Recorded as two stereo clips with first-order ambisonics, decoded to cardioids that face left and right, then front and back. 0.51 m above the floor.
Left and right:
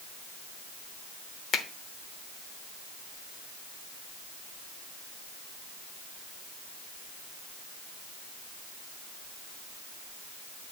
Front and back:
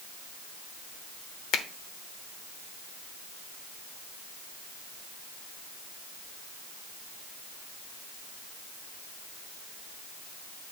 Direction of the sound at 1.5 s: 40° left.